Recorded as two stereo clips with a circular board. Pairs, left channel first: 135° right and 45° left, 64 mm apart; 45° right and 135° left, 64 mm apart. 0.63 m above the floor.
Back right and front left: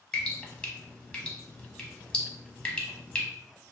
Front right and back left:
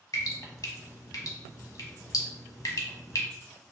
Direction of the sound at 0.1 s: 60° right.